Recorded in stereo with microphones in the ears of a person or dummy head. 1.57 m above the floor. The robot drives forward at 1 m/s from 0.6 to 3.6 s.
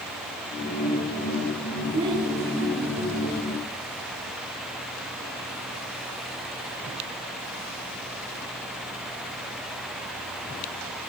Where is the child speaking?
20° right (ahead or behind), 8 m.